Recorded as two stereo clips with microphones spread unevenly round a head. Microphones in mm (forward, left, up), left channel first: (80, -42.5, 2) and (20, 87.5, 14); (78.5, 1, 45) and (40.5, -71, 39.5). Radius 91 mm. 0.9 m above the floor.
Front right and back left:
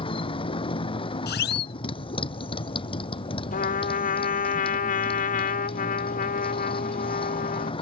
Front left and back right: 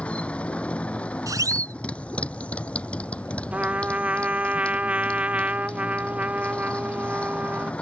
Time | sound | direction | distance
0.0 | a motorcycle | 10° right | ?
1.3 | a siren | 70° right | ?
3.5 | a trumpet | 45° right | ?